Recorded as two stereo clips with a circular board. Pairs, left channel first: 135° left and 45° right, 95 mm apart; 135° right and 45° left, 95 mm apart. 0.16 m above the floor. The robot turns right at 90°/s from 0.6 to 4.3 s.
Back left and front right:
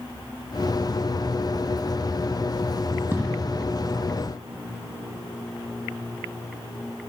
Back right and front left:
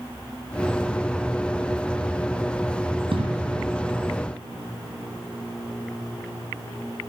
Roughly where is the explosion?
Ahead.